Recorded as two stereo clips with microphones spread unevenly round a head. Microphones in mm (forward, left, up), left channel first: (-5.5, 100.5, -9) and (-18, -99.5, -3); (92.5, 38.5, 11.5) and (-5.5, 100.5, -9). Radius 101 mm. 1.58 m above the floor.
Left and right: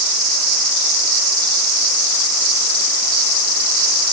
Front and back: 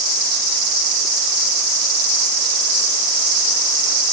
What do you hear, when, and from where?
Only background noise.